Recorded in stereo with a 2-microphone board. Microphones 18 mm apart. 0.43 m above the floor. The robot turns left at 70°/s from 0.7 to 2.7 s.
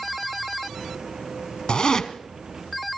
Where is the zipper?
70° left (ahead or behind), 1.1 m; by 2.1 s 40° left (ahead or behind), 1.1 m.